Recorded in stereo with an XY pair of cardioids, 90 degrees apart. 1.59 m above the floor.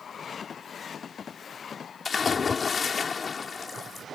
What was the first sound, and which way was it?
A splash, 45° left.